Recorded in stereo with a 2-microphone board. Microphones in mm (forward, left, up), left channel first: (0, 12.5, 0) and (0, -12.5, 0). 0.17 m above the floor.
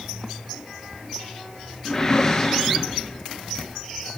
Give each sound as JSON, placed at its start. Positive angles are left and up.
{"t": 1.9, "sound": "a whoosh", "side_deg": 15, "distance_m": 1.1}